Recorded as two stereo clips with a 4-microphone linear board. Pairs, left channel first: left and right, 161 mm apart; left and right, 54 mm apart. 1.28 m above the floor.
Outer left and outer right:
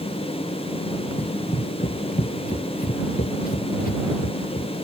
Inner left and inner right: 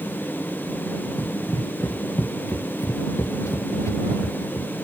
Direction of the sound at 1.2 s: 50° left (ahead or behind).